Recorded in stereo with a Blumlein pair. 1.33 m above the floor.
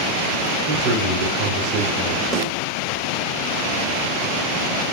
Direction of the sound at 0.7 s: 35° right.